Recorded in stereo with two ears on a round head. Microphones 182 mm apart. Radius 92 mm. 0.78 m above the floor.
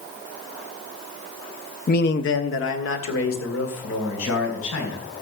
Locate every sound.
1.9 s a man speaking: 45° left (ahead or behind), 0.6 m; by 5.0 s 75° left (ahead or behind), 5 m